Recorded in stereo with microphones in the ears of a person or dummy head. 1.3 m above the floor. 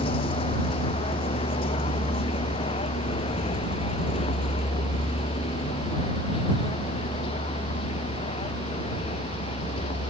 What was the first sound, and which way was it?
A vehicle, 35° left (ahead or behind).